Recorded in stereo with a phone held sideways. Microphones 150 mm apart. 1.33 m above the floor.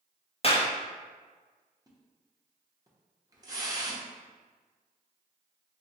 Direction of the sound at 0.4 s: 40° left (ahead or behind).